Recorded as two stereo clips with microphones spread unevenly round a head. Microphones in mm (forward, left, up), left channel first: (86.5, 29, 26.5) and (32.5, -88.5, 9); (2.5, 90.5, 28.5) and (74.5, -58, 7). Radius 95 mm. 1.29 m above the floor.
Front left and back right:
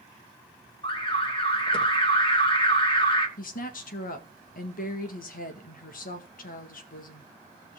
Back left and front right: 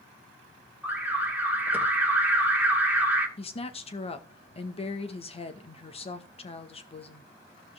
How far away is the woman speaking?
About 1.9 m.